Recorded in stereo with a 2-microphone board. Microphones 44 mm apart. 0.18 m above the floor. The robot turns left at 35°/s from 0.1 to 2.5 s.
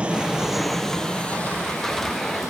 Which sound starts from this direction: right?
An aircraft, at 0.0 s.